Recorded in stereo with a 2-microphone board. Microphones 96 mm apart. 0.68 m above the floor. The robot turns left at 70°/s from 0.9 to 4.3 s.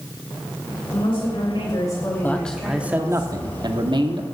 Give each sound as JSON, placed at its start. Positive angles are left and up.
{"t": 0.9, "sound": "a woman speaking", "azimuth_deg": 110, "distance_m": 3.0}
{"t": 2.2, "sound": "a man speaking", "azimuth_deg": 25, "distance_m": 1.1}